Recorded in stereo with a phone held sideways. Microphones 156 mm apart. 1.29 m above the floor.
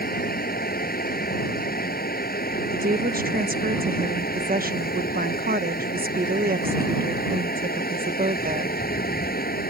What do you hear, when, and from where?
0.0 s a fan: 75° left (ahead or behind)
2.7 s a woman speaking: 70° right (ahead or behind)